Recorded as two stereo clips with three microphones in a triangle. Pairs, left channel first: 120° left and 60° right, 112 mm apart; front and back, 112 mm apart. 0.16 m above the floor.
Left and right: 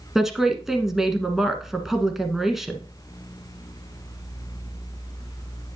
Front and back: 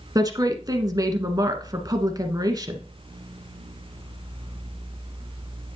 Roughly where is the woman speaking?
Behind right.